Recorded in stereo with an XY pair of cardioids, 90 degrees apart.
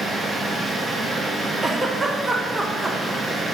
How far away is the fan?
About 3 m.